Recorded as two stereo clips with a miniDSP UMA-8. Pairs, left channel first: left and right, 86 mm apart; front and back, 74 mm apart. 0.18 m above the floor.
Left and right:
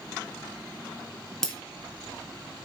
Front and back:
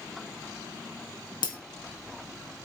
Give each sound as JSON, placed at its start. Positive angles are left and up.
{"t": 1.4, "sound": "breaking glass", "azimuth_deg": 5, "distance_m": 2.5}